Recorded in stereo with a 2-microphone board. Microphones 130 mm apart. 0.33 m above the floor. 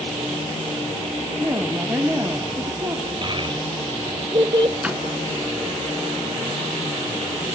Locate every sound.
1.4 s a woman speaking: 20° right (ahead or behind), 2.0 m
3.2 s a child speaking: 40° right (ahead or behind), 1.1 m
4.8 s a door slam: 10° right (ahead or behind), 3 m